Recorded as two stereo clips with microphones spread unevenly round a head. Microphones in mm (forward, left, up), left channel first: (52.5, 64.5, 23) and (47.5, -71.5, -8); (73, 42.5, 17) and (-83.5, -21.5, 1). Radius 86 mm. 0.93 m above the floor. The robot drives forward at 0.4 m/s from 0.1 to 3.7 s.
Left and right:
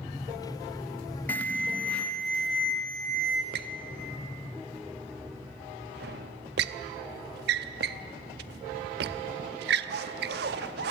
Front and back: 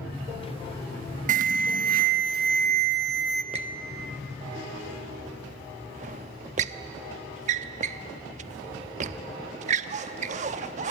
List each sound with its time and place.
1.3 s an alarm: 175° left, 0.7 m; by 3.4 s straight behind, 1.5 m
3.5 s a squeak: 100° right, 0.6 m; by 10.9 s 105° right, 0.6 m